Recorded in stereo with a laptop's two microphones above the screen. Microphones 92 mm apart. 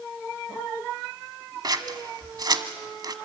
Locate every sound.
1.6 s scissors: 45° right (ahead or behind), 1.3 m